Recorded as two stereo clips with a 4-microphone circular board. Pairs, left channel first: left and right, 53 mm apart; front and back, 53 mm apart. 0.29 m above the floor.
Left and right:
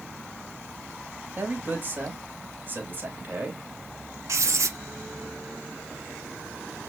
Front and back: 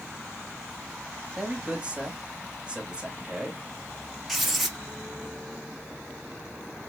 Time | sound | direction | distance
1.4 | a man speaking | 115° right | 1.2 m
4.3 | writing | 90° right | 0.9 m